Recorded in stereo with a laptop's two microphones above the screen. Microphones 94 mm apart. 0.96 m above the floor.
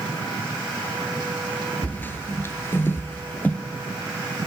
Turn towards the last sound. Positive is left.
turn(degrees=20)  # may be behind; listen again after turning